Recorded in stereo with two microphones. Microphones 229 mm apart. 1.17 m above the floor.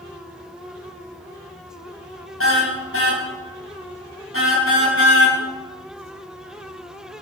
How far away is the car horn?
About 4 m.